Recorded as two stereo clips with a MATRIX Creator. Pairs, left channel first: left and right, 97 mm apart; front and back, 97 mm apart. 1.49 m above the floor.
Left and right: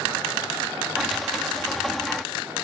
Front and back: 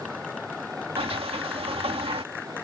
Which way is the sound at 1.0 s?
Straight behind.